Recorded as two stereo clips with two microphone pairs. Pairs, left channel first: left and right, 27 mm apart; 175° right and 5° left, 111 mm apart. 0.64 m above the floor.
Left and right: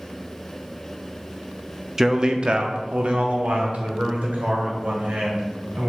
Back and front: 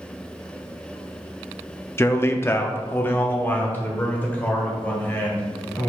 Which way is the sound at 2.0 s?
130° right.